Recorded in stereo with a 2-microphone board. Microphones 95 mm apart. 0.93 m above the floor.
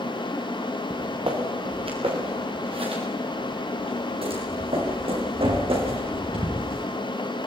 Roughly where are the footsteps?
Right.